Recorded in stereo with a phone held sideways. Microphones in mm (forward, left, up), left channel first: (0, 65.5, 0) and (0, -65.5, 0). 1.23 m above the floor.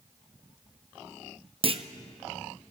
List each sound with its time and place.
1.6 s a clunk: 45° right (ahead or behind), 0.7 m